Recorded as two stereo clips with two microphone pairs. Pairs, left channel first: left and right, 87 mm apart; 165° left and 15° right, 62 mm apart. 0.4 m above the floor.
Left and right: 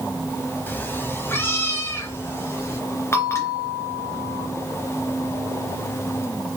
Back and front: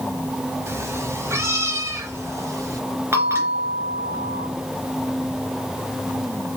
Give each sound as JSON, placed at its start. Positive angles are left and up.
{"t": 0.7, "sound": "a cat meowing", "azimuth_deg": 25, "distance_m": 1.3}
{"t": 3.1, "sound": "a bell", "azimuth_deg": 30, "distance_m": 2.5}